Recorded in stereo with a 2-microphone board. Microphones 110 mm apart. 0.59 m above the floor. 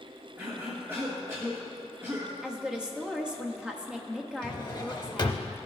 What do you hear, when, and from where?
0.4 s a cough: 25° right (ahead or behind), 1.2 m
2.4 s a woman speaking: 10° right (ahead or behind), 1.0 m
4.4 s a drawer: 45° left (ahead or behind), 0.7 m